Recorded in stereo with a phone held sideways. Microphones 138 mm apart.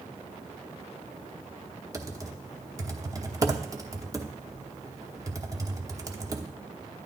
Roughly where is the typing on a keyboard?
Right.